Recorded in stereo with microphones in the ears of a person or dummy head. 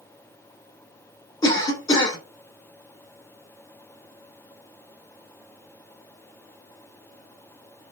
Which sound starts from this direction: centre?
A cough, at 1.4 s.